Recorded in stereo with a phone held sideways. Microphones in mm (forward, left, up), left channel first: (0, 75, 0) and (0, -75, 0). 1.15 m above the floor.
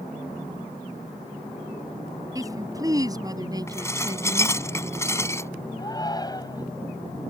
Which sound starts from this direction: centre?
Dishes clattering, at 3.7 s.